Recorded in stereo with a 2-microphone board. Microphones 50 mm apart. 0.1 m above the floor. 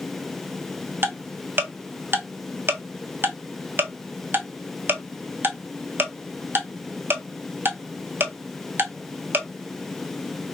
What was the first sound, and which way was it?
Ticking, 45° right (ahead or behind).